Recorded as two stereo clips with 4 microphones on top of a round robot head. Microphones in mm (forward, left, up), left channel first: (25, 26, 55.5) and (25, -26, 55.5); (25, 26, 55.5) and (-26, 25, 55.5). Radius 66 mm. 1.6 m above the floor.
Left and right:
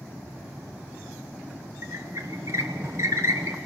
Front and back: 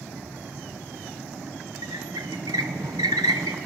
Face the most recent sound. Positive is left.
turn(degrees=-145)